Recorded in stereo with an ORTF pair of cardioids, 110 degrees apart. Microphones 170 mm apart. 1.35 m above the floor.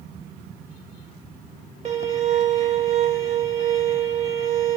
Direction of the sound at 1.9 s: 40° right.